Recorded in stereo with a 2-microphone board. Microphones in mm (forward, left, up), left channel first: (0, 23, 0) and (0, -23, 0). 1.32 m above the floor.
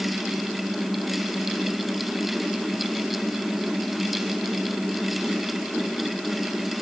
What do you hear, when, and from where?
Only background noise.